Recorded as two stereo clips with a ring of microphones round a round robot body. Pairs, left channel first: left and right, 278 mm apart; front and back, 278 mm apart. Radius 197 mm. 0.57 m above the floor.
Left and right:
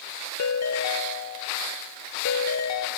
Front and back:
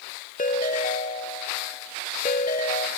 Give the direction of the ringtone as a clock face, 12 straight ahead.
10 o'clock.